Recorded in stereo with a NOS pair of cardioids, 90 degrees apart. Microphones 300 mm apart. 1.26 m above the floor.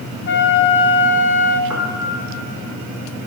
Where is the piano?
10° right, 1.9 m.